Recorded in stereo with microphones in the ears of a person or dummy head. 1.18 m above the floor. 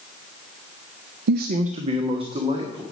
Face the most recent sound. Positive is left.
turn(degrees=-25)  # may be behind; listen again after turning